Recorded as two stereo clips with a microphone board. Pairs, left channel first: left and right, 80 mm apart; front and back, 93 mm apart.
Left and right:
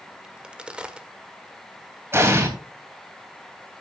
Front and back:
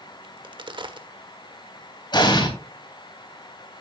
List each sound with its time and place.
0.2 s a crack: 165° right, 1.4 m
2.1 s an explosion: 35° right, 3 m